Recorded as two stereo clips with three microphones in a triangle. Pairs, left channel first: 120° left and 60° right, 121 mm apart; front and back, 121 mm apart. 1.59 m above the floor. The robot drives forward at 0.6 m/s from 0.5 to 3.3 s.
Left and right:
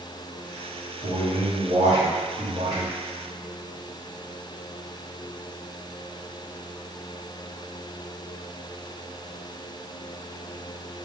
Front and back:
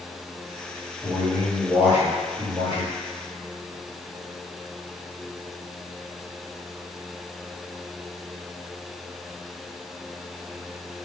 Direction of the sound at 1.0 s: 85° right.